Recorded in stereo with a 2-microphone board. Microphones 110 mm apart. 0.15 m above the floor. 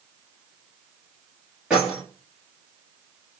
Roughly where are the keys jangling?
Centre.